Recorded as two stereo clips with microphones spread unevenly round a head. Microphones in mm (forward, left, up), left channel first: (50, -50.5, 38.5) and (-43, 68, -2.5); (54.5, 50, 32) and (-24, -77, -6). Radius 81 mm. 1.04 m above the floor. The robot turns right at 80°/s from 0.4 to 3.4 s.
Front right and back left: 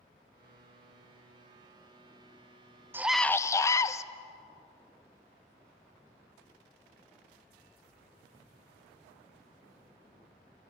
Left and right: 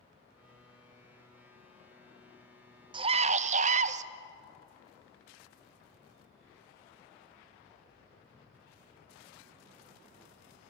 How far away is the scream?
About 0.8 m.